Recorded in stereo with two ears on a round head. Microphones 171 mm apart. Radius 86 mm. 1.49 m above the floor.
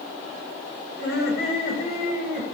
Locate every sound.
1.0 s laughter: 50° left (ahead or behind), 9 m; by 2.4 s 45° left (ahead or behind), 11 m